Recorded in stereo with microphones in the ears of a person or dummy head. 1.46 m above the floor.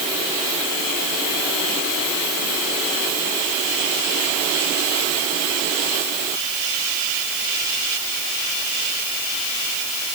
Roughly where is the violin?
I don't hear a violin.